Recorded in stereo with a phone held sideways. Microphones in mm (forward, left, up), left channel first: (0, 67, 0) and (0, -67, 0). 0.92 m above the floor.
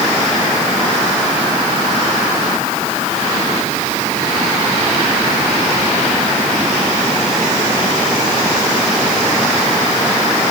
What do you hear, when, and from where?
Only background noise.